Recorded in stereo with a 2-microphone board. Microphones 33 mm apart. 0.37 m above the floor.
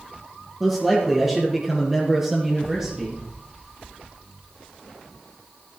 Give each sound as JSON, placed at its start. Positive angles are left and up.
{"t": 0.6, "sound": "a man speaking", "side_deg": -10, "distance_m": 6.5}